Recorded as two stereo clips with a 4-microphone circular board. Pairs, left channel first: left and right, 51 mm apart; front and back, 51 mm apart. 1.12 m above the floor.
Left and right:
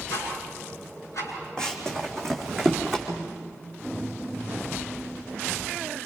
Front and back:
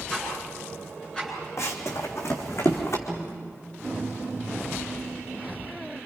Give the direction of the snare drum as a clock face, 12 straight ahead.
9 o'clock.